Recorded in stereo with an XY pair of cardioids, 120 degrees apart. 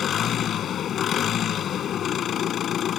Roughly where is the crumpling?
No crumpling in this recording.